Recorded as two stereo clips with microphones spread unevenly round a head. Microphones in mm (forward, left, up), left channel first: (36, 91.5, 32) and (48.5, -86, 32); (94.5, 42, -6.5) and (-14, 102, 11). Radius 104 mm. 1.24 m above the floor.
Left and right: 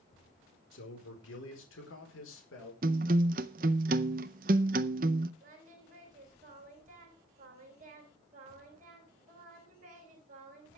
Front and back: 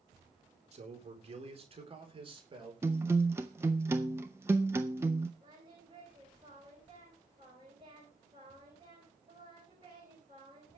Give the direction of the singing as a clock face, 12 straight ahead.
5 o'clock.